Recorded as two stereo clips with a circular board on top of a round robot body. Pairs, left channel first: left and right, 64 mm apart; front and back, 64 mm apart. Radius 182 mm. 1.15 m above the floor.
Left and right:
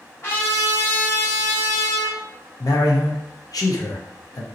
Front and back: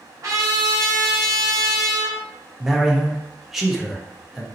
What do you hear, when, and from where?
0.2 s a trumpet: 140° left, 1.1 m
2.6 s a man speaking: 95° left, 0.9 m